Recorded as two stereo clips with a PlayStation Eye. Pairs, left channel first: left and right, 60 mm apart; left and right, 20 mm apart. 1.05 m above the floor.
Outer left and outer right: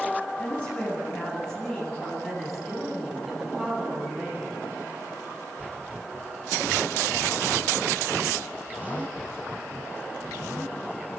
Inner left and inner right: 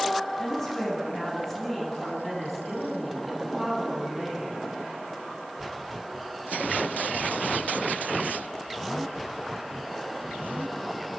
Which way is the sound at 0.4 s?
20° left (ahead or behind).